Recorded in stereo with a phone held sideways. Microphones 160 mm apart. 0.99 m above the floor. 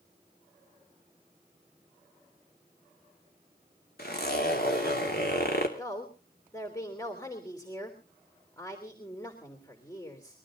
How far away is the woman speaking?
About 3.5 m.